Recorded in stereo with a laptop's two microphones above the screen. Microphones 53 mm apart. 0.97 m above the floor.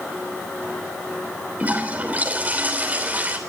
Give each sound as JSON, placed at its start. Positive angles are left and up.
{"t": 1.6, "sound": "a toilet flushing", "side_deg": -30, "distance_m": 3.0}